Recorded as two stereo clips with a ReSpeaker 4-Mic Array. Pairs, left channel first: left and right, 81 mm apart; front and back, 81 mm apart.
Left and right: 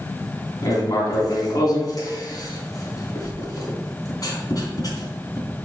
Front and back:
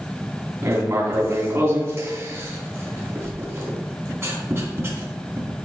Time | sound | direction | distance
0.6 | writing | 125° left | 3 m